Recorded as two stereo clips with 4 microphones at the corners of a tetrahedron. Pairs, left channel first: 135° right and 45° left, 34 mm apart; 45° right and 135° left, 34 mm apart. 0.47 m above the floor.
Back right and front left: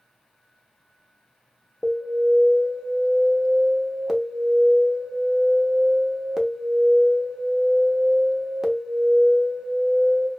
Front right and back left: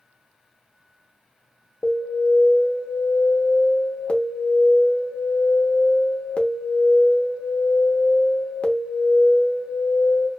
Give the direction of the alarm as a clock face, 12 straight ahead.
1 o'clock.